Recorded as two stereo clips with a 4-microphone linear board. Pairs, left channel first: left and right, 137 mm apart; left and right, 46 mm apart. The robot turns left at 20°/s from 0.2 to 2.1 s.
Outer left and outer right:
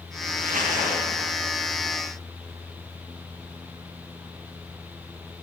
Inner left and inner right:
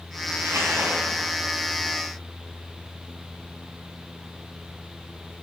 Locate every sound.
0.4 s crumpling: 85° right, 7 m; by 1.4 s 65° right (ahead or behind), 7 m